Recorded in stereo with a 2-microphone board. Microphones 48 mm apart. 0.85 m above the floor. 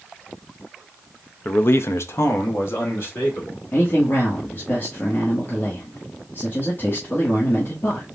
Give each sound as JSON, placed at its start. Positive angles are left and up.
{"t": 1.4, "sound": "a man speaking", "side_deg": 35, "distance_m": 0.5}
{"t": 3.7, "sound": "a man speaking", "side_deg": 45, "distance_m": 1.4}